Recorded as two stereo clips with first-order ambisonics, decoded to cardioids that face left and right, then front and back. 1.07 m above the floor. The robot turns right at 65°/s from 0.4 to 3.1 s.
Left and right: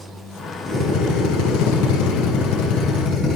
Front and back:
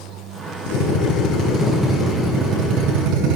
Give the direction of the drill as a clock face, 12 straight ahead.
12 o'clock.